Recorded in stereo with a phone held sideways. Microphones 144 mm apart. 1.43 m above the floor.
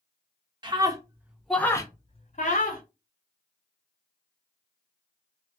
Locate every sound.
0.6 s a scream: 30° right (ahead or behind), 0.8 m; by 2.8 s 70° left (ahead or behind), 0.7 m